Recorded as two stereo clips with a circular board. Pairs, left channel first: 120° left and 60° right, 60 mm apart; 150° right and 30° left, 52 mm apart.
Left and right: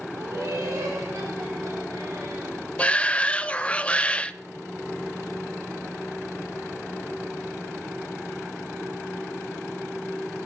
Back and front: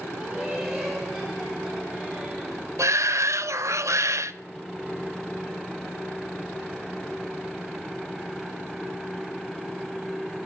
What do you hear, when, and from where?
0.1 s laughter: 50° right, 2 m; by 2.6 s 70° right, 4.5 m
2.8 s a shout: 50° left, 0.6 m